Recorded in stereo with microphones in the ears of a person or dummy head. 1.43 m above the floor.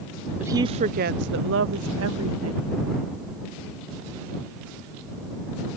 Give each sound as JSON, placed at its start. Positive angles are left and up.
{"t": 0.4, "sound": "a woman speaking", "side_deg": -10}